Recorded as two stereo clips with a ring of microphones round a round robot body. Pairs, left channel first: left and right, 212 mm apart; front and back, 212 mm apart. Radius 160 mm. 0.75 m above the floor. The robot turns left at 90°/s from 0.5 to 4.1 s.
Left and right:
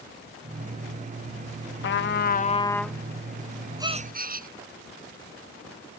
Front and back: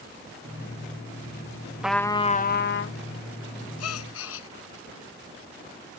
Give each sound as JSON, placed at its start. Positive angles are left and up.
{"t": 1.8, "sound": "a trumpet", "azimuth_deg": 95}
{"t": 3.8, "sound": "a gasp", "azimuth_deg": -15}